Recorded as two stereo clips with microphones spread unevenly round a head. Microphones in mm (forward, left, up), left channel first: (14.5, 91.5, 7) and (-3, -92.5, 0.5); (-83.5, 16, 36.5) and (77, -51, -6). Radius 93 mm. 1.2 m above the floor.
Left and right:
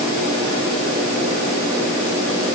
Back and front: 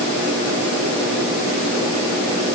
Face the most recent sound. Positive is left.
No sound to turn to.